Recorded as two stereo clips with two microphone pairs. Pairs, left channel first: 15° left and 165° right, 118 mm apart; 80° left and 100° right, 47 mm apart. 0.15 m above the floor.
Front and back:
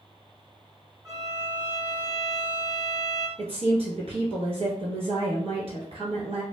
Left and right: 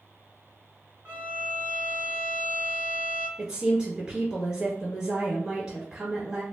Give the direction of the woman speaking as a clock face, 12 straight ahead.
6 o'clock.